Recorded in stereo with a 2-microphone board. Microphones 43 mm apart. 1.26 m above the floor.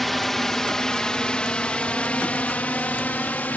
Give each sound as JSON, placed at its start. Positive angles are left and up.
{"t": 0.0, "sound": "a drone", "side_deg": 0}